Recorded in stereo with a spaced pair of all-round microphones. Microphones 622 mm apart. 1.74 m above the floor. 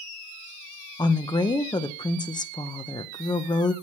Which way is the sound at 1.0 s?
10° left (ahead or behind).